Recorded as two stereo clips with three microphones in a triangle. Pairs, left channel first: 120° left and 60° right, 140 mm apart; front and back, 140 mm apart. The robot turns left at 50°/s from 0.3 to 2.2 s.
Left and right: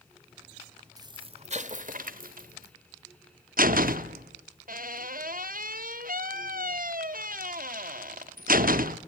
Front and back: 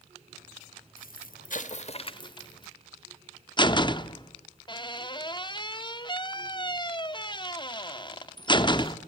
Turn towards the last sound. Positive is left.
turn(degrees=-60)